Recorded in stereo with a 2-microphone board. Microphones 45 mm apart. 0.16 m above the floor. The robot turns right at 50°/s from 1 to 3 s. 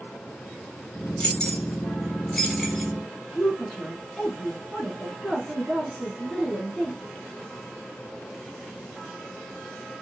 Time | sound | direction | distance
1.2 | keys jangling | 30° left (ahead or behind) | 0.9 m
3.4 | a woman speaking | 20° left (ahead or behind) | 1.2 m